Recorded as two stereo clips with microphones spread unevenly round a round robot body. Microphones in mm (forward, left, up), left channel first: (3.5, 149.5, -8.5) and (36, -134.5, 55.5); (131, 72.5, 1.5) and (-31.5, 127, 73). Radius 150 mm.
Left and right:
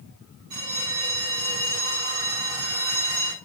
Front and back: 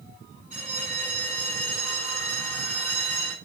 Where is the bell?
100° right, 5.5 m.